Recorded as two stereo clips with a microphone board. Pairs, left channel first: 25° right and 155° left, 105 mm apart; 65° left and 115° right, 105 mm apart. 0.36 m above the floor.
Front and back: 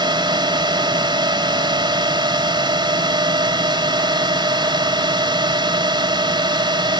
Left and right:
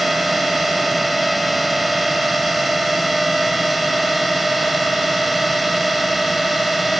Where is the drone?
160° left.